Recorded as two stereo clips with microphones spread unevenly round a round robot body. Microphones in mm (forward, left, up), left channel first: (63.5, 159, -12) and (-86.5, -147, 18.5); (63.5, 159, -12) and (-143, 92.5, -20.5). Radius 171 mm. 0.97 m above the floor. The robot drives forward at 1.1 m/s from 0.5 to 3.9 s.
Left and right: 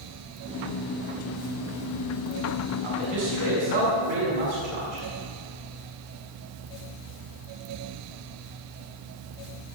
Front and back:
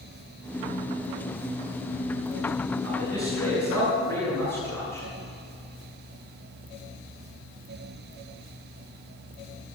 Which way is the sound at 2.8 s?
120° right.